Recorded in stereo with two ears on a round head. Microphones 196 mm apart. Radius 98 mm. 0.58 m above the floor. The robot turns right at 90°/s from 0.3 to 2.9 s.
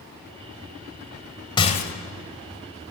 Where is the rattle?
20° left, 1.4 m; by 1.9 s 55° left, 1.4 m.